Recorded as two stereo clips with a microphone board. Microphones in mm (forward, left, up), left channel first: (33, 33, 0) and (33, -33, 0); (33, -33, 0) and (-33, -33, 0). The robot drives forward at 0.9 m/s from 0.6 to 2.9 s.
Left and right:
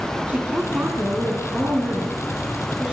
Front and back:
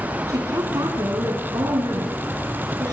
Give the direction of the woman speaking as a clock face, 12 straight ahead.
5 o'clock.